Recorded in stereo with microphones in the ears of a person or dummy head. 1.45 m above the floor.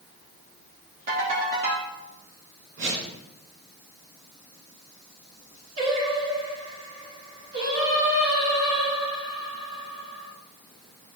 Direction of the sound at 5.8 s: 50° right (ahead or behind).